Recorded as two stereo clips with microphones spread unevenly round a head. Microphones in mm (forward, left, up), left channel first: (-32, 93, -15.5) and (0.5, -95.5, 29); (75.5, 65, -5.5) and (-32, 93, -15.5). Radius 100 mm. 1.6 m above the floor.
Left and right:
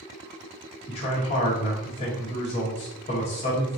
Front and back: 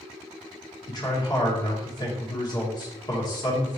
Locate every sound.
0.9 s a man speaking: 35° left, 1.4 m